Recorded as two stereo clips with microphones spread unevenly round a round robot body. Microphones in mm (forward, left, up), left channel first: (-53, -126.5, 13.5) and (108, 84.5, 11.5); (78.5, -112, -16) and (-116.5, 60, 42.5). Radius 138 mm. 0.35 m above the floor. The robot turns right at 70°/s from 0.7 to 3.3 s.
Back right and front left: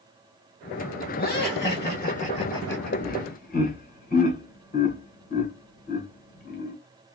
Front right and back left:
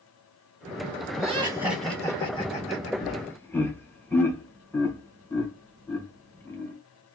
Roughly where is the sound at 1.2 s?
Behind.